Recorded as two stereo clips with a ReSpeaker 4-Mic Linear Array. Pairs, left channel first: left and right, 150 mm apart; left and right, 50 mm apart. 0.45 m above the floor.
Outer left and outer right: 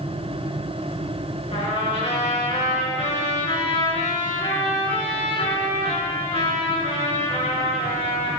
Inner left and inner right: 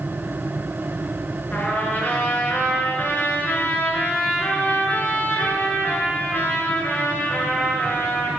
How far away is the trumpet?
About 5 m.